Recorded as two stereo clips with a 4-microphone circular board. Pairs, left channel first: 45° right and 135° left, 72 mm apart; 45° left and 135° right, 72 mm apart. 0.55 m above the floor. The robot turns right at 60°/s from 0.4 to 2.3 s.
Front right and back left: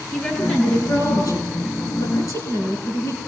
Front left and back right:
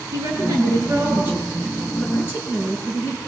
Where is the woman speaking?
125° right, 8.5 m; by 3.2 s 10° right, 8.5 m.